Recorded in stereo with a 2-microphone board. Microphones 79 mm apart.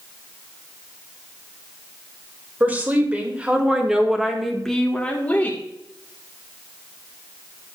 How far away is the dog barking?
I don't hear a dog barking.